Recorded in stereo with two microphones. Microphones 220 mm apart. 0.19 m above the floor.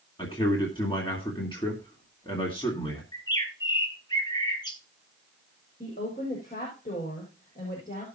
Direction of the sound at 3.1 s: 20° left (ahead or behind).